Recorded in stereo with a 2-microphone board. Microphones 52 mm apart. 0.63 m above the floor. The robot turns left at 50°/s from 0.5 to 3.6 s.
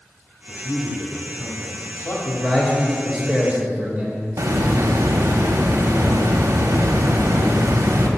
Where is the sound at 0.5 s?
Straight behind, 1.5 m; by 2.1 s 95° left, 1.5 m.